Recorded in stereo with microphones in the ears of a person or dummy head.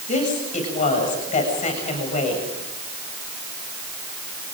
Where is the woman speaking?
35° left (ahead or behind), 7.5 m.